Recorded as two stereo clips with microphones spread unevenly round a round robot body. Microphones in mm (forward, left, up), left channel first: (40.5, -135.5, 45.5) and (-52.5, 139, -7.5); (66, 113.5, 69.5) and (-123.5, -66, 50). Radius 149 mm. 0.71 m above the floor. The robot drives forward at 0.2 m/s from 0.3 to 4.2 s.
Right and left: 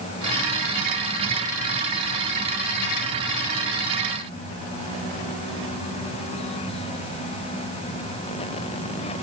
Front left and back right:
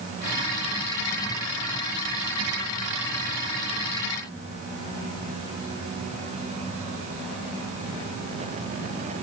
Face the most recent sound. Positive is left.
No sound to turn to.